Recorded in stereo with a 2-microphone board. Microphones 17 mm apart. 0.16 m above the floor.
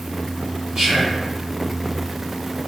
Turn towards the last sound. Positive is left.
turn(degrees=-40)  # may be behind; listen again after turning